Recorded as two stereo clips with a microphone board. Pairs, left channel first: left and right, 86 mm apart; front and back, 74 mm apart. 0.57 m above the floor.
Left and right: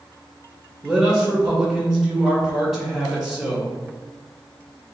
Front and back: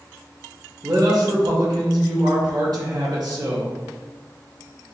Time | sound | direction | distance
0.8 | a man speaking | straight behind | 2.0 m